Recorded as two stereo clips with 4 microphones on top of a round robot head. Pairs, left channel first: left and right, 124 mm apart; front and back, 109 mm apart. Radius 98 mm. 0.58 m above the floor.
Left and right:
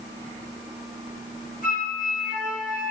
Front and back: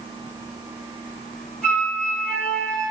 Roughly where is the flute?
Left.